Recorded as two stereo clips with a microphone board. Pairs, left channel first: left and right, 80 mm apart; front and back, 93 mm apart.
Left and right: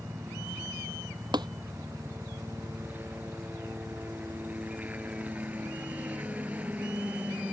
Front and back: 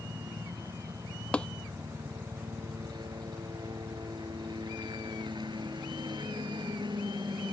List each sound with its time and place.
0.0 s a helicopter: 155° right; by 7.5 s 160° right
1.3 s tapping: 80° right